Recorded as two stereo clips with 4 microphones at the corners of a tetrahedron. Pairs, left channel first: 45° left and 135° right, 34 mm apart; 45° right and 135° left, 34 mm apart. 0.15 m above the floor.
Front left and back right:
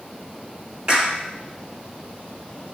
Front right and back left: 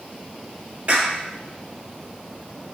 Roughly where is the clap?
Behind.